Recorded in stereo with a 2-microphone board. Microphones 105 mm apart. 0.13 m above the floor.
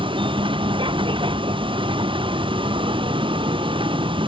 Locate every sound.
0.0 s a vehicle: 55° right (ahead or behind)